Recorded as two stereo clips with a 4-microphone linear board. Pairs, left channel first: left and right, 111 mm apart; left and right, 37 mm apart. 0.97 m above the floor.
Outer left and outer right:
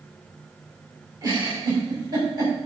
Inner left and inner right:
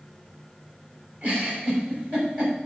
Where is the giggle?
35° right (ahead or behind), 6.5 m.